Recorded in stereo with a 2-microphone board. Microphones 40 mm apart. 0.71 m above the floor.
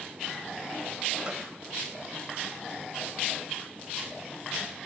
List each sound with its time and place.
1.2 s a gunshot: 25° right (ahead or behind), 1.9 m